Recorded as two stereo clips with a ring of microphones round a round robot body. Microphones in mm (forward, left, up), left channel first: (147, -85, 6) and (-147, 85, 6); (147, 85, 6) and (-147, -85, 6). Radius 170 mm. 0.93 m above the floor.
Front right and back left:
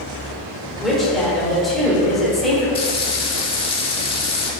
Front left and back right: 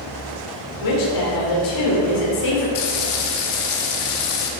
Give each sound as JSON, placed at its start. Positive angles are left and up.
{"t": 0.8, "sound": "a woman speaking", "azimuth_deg": 60, "distance_m": 3.5}
{"t": 2.8, "sound": "frying", "azimuth_deg": 45, "distance_m": 1.5}